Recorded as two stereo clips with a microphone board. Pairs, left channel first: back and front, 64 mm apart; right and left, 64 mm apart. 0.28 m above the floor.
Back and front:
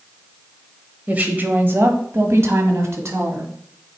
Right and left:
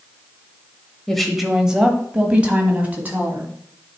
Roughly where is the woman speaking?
Ahead.